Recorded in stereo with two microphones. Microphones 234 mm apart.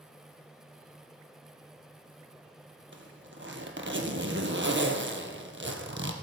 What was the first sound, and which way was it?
A zipper, 55° right (ahead or behind).